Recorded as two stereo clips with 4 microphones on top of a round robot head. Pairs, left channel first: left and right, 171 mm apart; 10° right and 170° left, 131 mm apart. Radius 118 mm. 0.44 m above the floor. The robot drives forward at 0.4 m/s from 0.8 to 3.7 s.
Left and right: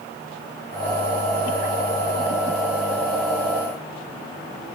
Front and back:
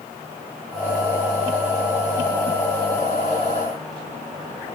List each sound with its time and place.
Only background noise.